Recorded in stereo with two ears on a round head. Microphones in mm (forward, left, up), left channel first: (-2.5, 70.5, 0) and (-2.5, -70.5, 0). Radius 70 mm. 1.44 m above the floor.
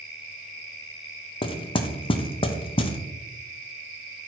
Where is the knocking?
35° left (ahead or behind), 0.7 m.